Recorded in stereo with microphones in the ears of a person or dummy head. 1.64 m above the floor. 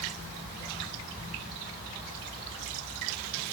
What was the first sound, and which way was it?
Only background noise.